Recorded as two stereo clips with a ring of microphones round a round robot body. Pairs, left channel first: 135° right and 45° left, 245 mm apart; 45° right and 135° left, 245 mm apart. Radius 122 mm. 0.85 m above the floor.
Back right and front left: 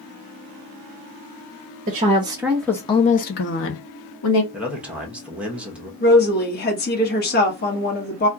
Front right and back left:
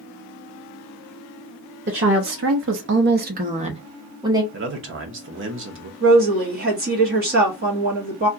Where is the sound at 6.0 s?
Straight behind, 1.2 m.